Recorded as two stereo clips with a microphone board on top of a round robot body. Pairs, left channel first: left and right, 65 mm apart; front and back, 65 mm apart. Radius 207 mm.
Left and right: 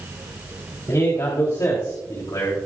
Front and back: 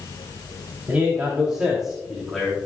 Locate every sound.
0.9 s a man speaking: 115° left, 4 m; by 2.5 s 85° left, 3.5 m